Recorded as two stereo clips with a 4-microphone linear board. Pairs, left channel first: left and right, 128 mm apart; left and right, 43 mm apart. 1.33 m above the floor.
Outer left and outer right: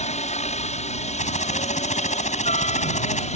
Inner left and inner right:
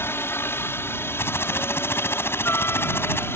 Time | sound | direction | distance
0.0 | a helicopter | 65° left (ahead or behind) | ?
1.2 | typing on a keyboard | 65° left (ahead or behind) | ?